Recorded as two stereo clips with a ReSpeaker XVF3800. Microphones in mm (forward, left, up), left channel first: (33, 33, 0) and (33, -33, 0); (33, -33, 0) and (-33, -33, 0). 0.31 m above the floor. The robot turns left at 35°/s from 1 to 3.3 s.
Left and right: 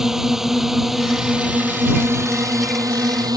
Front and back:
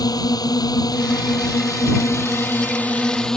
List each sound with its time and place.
0.0 s a drone: 5° right; by 3.4 s 80° right